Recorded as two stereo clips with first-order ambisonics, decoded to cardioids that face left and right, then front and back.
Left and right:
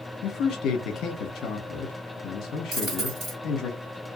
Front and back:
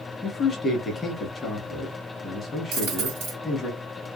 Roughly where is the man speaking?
Ahead left.